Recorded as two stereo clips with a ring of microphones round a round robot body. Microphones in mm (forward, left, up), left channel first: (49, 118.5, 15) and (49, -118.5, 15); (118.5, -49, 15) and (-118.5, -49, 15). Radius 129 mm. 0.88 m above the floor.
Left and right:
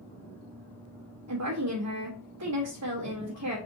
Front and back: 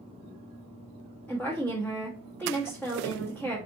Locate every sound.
1.3 s a woman speaking: 85° right, 1.2 m